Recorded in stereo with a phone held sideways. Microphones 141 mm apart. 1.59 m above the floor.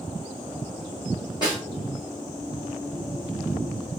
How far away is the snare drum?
About 2 m.